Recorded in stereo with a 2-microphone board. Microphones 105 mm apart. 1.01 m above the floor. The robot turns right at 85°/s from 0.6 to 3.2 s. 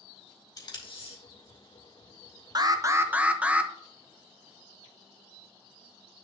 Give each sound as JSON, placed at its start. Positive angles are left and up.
{"t": 0.6, "sound": "tape being pulled", "side_deg": 40, "distance_m": 2.5}
{"t": 2.5, "sound": "an alarm", "azimuth_deg": -75, "distance_m": 0.7}